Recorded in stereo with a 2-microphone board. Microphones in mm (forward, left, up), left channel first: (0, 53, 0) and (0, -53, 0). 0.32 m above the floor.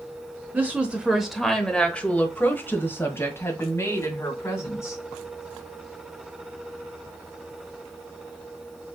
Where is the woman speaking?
15° right (ahead or behind), 0.9 m; by 5.0 s 25° left (ahead or behind), 2.5 m.